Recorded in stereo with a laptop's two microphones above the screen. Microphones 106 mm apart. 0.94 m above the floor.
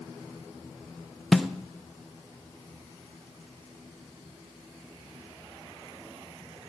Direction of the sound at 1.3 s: Centre (ahead or behind).